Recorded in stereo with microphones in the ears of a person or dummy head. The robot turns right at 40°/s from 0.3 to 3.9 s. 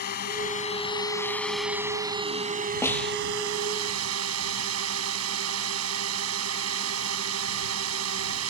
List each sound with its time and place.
0.0 s a drone: 130° left; by 8.5 s 85° right
2.8 s a snare drum: 10° left (ahead or behind); by 3.2 s centre (ahead or behind)